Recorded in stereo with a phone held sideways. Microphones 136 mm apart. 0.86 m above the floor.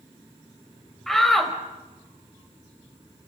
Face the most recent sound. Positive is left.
turn(degrees=0)  # may be behind; listen again after turning